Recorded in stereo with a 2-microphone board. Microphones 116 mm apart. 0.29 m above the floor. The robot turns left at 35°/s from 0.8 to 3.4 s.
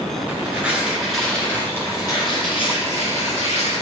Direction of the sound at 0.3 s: 170° right.